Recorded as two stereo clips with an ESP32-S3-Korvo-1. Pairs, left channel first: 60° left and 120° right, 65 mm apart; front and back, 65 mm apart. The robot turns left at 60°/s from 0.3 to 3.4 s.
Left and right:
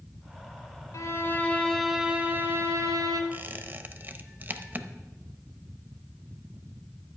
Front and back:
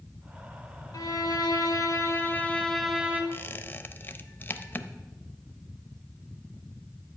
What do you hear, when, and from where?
0.9 s a violin: 25° left, 1.5 m; by 3.2 s 115° right, 1.5 m
3.3 s a squeak: 55° right, 0.6 m; by 4.9 s 60° right, 0.6 m